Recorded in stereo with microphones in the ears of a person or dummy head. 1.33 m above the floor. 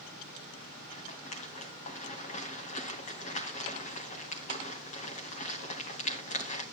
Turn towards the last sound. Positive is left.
turn(degrees=35)  # may be behind; listen again after turning